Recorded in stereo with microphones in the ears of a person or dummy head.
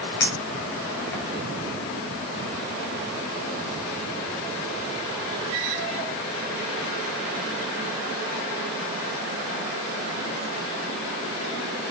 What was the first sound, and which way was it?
A clink, 15° left (ahead or behind).